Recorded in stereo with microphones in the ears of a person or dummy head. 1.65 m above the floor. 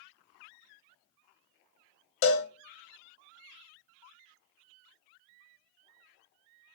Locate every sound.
2.2 s a cowbell: 50° left (ahead or behind), 0.6 m